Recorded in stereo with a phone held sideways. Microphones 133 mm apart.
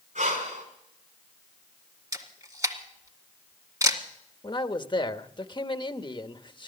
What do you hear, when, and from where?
0.1 s breathing: 80° right, 4.5 m
2.1 s a camera shutter: 25° right (ahead or behind), 1.9 m
4.4 s a man speaking: 35° left (ahead or behind), 0.8 m